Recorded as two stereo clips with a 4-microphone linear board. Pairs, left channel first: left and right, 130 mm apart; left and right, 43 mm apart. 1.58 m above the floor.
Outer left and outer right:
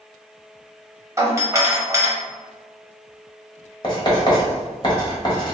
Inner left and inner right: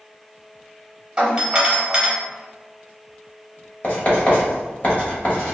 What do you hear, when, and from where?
1.2 s a doorbell: 25° right (ahead or behind), 0.8 m
3.8 s writing: 35° left (ahead or behind), 1.0 m